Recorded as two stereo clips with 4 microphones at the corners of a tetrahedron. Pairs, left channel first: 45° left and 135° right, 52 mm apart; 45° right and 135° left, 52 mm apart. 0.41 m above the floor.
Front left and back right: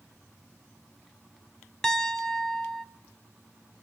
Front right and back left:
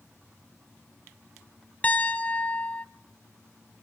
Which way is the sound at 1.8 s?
25° right.